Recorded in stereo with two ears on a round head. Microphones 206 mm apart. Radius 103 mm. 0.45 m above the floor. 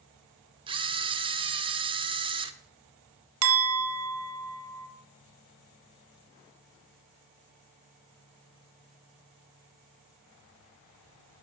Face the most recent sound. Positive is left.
turn(degrees=-60)  # may be behind; listen again after turning